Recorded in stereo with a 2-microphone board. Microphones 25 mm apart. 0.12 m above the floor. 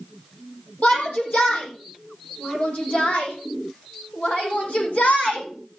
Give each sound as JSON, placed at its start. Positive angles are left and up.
{"t": 0.8, "sound": "a shout", "side_deg": 70, "distance_m": 4.5}